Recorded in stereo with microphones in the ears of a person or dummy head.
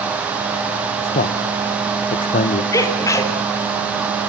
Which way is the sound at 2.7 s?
20° left (ahead or behind).